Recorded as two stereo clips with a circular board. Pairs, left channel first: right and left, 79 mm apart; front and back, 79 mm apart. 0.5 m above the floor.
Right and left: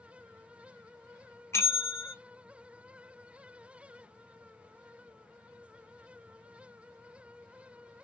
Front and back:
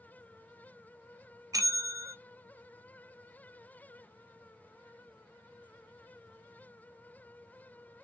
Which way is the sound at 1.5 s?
140° right.